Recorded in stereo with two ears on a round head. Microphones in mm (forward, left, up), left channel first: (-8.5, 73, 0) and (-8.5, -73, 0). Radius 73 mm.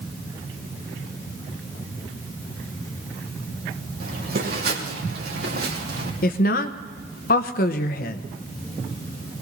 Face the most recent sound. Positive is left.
turn(degrees=55)  # may be behind; listen again after turning